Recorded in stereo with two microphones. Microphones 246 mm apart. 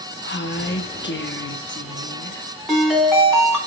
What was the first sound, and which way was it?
A woman speaking, 50° left (ahead or behind).